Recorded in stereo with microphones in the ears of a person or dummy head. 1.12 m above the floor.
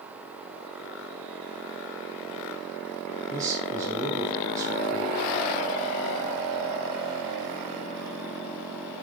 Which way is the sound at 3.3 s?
20° right (ahead or behind).